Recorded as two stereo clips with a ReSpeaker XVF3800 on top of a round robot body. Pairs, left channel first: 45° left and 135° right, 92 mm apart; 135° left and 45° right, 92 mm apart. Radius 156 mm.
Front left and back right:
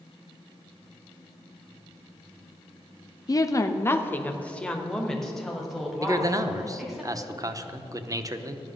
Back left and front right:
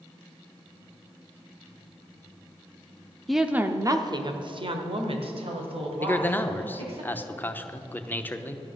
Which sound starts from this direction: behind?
A man speaking, at 6.0 s.